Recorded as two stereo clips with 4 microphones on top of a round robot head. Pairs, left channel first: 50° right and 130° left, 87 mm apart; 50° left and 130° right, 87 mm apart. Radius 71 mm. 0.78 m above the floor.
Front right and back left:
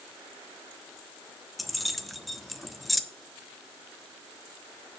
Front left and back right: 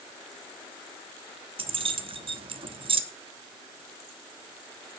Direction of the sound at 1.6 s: 140° right.